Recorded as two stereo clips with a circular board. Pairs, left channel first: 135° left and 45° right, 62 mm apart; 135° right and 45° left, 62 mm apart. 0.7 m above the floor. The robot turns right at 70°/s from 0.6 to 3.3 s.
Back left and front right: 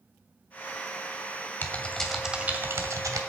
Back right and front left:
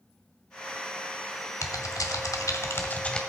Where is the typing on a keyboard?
170° right, 1.5 m; by 3.2 s 60° right, 1.5 m.